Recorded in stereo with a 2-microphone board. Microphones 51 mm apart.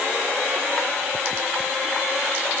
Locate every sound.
Only background noise.